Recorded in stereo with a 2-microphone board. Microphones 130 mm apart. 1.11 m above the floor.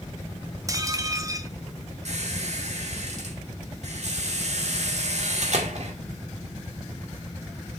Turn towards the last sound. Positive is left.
turn(degrees=-60)  # may be behind; listen again after turning